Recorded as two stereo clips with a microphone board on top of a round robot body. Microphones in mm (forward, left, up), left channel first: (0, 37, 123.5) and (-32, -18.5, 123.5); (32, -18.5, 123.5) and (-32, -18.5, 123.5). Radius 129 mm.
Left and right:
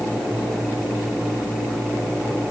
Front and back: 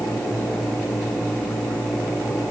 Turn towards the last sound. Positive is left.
No sound to turn to.